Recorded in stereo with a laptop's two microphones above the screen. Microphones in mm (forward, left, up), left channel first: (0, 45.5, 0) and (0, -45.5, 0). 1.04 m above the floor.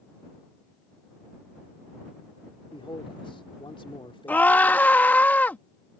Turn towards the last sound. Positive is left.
turn(degrees=20)  # may be behind; listen again after turning